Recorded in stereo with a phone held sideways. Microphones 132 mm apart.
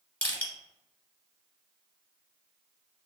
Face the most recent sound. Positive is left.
turn(degrees=15)  # may be behind; listen again after turning